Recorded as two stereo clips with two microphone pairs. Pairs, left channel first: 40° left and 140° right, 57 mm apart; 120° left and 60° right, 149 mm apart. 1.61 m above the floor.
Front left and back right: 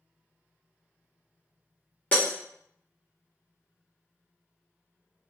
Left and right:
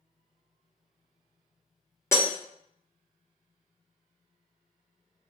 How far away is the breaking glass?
About 0.8 m.